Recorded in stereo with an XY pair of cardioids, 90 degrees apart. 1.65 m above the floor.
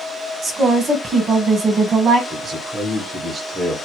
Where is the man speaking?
55° right, 1.2 m.